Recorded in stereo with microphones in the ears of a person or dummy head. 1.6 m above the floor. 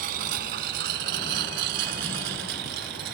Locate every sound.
0.0 s a lawn mower: 60° right (ahead or behind); by 3.1 s 70° right (ahead or behind)